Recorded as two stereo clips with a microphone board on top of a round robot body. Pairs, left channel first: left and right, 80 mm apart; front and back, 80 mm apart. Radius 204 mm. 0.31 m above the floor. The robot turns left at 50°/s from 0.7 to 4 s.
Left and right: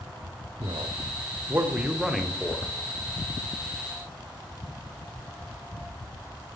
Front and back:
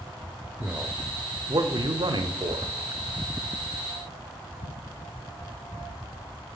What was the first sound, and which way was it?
A man speaking, 105° right.